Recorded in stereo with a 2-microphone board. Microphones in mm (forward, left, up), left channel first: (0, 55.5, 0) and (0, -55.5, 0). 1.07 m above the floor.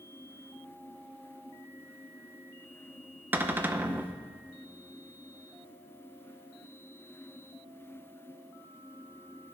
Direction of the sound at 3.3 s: 15° right (ahead or behind).